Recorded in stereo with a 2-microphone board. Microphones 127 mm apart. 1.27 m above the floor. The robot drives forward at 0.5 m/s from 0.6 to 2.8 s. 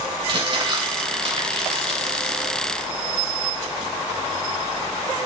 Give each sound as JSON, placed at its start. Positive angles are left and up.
{"t": 0.3, "sound": "crumpling", "side_deg": -45, "distance_m": 3.0}